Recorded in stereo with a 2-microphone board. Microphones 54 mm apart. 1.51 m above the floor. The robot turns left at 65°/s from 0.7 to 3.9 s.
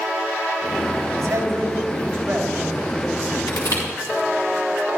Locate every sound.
1.2 s a man speaking: 85° right, 4 m; by 3.4 s 135° left, 4 m
3.5 s crushing: 75° left (ahead or behind), 6 m; by 3.8 s 80° left, 6 m